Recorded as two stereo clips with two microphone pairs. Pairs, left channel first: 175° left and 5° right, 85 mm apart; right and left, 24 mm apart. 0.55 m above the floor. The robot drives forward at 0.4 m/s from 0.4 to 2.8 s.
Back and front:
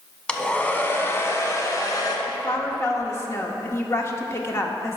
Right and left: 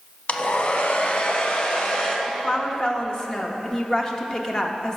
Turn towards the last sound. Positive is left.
turn(degrees=-140)